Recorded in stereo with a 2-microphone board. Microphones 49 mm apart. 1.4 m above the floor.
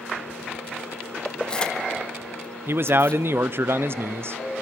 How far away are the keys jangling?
About 0.9 m.